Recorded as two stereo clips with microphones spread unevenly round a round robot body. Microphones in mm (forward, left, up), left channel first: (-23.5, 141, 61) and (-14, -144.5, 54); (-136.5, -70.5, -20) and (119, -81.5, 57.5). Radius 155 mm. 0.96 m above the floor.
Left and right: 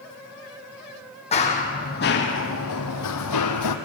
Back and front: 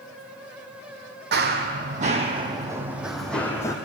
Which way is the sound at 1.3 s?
25° left.